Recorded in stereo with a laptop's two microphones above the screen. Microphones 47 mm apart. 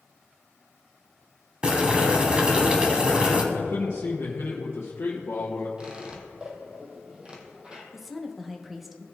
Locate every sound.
1.6 s boiling: 20° right (ahead or behind), 1.1 m
3.5 s a man speaking: 55° left (ahead or behind), 0.8 m
5.8 s a squeak: 20° right (ahead or behind), 2.0 m
7.9 s a woman speaking: 5° right (ahead or behind), 1.1 m